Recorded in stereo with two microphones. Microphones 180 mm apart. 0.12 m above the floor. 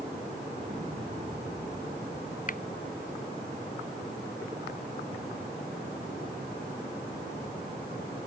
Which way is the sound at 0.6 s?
30° right (ahead or behind).